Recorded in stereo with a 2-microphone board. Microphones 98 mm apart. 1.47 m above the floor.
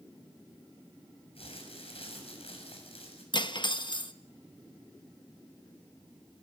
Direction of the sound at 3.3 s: 55° left (ahead or behind).